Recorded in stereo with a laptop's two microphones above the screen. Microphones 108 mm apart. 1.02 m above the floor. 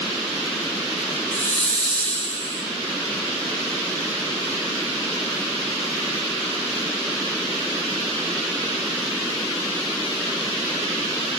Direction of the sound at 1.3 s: 80° left.